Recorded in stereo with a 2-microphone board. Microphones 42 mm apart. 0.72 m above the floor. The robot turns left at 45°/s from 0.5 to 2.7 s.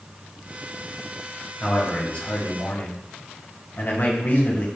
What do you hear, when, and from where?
1.6 s a man speaking: 170° left, 1.1 m; by 4.7 s 120° left, 1.1 m